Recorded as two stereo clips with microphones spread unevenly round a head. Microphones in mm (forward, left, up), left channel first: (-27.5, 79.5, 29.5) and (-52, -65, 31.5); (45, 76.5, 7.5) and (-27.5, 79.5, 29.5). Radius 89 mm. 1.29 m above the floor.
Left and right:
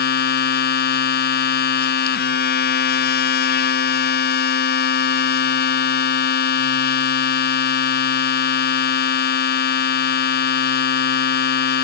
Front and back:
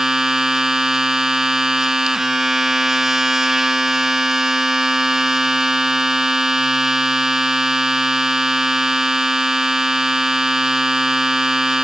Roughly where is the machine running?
Left.